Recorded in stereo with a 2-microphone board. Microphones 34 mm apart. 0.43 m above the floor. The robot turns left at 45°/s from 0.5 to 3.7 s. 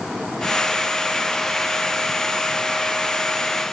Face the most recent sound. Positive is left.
No sound to turn to.